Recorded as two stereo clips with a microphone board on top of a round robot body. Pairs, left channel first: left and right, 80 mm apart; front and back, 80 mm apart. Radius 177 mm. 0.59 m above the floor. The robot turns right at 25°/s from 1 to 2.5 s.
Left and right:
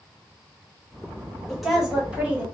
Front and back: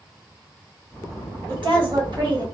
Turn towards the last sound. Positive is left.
turn(degrees=-155)